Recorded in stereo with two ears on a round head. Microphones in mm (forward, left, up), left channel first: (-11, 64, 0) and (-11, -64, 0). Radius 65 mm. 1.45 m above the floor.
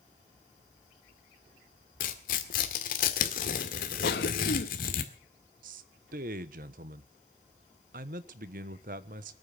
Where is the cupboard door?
I don't hear a cupboard door.